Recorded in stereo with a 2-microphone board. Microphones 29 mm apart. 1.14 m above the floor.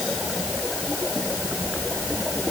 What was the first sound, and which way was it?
Only background noise.